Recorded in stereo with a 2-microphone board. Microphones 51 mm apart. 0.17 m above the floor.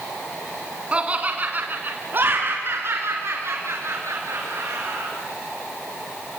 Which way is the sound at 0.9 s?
25° right (ahead or behind).